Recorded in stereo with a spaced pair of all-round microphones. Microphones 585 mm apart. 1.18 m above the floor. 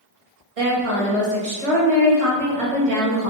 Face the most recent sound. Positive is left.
turn(degrees=-70)  # may be behind; listen again after turning